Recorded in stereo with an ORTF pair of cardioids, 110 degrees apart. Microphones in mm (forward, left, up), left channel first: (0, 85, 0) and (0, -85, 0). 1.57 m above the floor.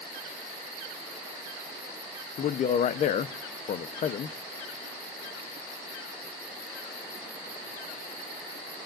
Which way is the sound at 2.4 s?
50° left.